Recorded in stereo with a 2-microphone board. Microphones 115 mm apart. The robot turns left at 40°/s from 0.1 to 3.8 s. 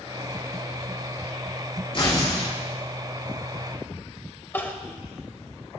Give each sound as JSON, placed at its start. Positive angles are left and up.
{"t": 1.9, "sound": "tearing paper", "side_deg": 50, "distance_m": 5.0}
{"t": 4.5, "sound": "crying", "side_deg": 20, "distance_m": 0.8}